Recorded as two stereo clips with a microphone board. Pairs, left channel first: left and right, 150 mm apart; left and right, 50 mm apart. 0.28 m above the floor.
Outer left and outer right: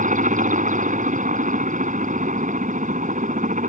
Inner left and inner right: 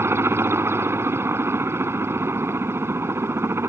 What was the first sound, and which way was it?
A helicopter, 60° right (ahead or behind).